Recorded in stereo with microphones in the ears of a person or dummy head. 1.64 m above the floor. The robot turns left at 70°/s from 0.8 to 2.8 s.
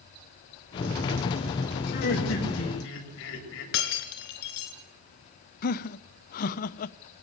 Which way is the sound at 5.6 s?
50° left (ahead or behind).